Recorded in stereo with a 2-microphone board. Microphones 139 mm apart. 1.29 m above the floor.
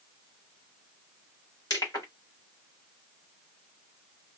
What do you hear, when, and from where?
1.7 s crushing: 30° left (ahead or behind), 1.8 m